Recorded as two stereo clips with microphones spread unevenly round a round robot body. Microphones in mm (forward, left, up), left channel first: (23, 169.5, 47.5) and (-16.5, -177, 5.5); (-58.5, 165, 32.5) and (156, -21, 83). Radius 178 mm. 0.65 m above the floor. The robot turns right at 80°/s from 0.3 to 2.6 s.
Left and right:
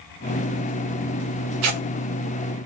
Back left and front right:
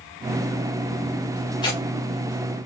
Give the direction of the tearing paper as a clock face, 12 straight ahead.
5 o'clock.